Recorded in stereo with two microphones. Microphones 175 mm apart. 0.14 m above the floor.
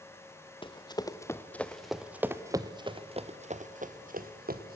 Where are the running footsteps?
30° left (ahead or behind), 1.4 m; by 4.8 s 60° right (ahead or behind), 1.8 m.